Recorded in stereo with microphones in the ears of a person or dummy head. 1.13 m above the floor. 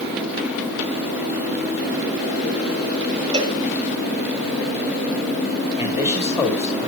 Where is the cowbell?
25° right (ahead or behind), 0.8 m.